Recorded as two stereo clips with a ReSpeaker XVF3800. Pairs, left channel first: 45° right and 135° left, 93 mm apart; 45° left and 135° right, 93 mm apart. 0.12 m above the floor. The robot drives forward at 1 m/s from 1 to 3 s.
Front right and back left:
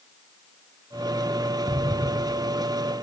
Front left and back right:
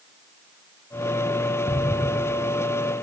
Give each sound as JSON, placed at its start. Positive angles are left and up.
{"t": 1.7, "sound": "an explosion", "azimuth_deg": 70, "distance_m": 0.7}